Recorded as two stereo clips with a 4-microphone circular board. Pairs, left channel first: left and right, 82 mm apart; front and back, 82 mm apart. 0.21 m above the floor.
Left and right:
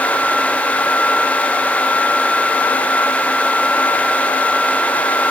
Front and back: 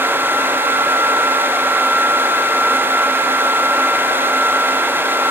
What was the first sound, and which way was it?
Only background noise.